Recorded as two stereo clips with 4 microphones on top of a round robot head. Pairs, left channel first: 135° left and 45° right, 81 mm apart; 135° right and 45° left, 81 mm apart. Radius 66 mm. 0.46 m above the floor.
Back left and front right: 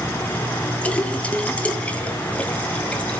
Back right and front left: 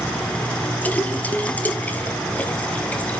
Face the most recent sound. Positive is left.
turn(degrees=-175)